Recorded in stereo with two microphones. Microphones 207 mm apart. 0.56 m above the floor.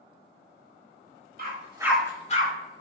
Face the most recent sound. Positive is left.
turn(degrees=45)  # may be behind; listen again after turning